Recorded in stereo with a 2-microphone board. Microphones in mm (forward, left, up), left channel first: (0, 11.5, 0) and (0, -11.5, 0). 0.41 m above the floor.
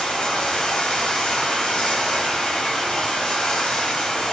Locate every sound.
0.0 s running water: 50° left (ahead or behind), 1.1 m